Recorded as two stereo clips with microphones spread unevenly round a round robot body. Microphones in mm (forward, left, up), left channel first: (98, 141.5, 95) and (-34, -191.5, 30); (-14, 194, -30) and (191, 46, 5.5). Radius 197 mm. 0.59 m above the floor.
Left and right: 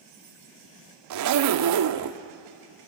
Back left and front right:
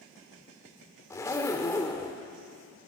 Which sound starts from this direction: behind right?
A zipper, at 1.1 s.